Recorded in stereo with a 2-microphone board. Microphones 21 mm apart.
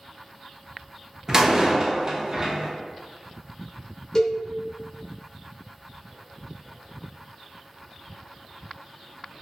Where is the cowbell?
30° left (ahead or behind), 0.6 m.